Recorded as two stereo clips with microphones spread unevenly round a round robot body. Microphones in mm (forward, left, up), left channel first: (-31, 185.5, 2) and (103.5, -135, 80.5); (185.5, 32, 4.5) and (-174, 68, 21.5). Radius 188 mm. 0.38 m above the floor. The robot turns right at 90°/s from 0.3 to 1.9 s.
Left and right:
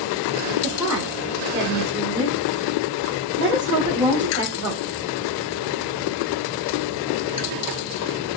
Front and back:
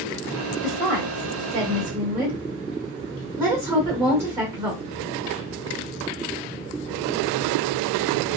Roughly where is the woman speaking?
Behind left.